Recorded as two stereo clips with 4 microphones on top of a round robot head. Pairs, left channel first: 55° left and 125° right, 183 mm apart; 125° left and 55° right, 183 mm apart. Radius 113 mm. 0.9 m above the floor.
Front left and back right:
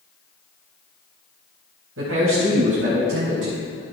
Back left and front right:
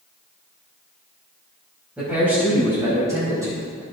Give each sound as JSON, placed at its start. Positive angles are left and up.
{"t": 2.0, "sound": "a man speaking", "azimuth_deg": -140, "distance_m": 4.5}